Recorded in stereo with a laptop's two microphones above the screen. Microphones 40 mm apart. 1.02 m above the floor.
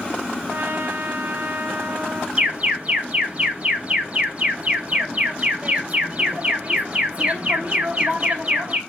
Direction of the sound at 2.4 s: 30° right (ahead or behind).